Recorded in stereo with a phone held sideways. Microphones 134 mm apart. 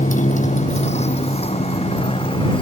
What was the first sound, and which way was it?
A motorcycle, 70° left (ahead or behind).